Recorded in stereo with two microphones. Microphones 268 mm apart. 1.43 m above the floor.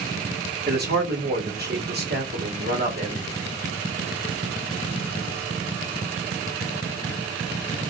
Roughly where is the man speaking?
Right.